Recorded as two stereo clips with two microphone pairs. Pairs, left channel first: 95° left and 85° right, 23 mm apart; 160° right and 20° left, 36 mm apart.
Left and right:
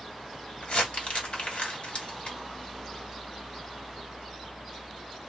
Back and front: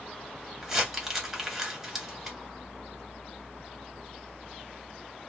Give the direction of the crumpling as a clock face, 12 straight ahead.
9 o'clock.